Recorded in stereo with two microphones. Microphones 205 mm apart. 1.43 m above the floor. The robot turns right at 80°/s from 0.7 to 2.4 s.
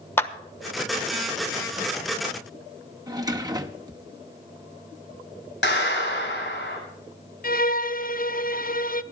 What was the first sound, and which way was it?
A clap, 10° left (ahead or behind).